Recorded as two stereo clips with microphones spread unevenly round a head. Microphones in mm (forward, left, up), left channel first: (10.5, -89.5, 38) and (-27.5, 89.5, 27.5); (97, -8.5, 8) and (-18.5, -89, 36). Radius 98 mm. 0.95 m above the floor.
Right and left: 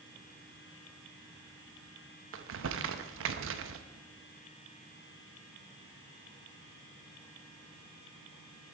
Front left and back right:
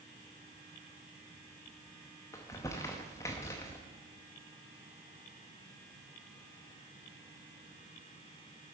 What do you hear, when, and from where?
2.3 s crumpling: 110° left, 0.8 m